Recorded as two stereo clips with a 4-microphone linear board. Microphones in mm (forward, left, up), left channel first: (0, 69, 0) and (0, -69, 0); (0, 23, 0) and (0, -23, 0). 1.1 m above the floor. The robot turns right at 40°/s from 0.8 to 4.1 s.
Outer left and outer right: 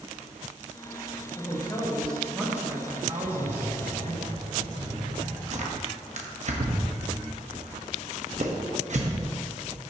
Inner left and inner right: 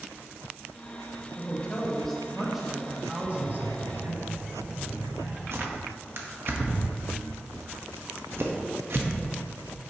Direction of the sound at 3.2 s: 95° right.